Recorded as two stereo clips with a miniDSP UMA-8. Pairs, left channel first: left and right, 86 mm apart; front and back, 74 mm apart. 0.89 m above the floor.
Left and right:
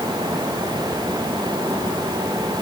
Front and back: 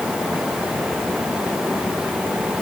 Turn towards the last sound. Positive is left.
No sound to turn to.